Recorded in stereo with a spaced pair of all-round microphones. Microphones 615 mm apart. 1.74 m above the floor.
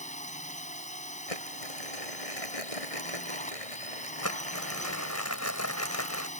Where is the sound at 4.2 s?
25° left (ahead or behind).